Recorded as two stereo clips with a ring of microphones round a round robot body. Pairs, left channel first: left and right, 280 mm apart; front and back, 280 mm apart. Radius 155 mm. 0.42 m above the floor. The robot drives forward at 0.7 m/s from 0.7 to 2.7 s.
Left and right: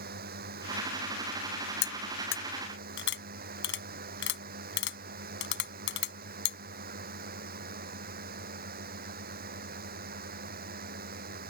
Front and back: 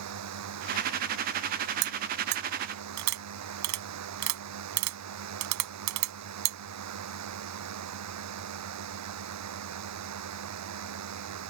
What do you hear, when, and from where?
0.0 s a drone: 150° right; by 11.5 s 155° right
1.8 s cutlery clinking: 130° left; by 6.6 s 145° left